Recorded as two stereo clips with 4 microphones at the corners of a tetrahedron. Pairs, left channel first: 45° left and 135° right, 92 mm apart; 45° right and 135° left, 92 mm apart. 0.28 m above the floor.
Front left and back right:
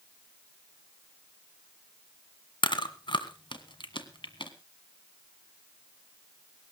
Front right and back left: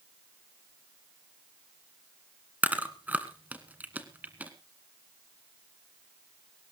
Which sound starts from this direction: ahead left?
Chewing, at 2.6 s.